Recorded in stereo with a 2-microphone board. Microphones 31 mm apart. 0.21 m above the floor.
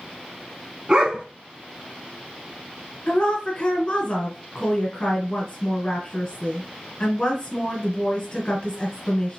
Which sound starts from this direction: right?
A dog barking, at 0.9 s.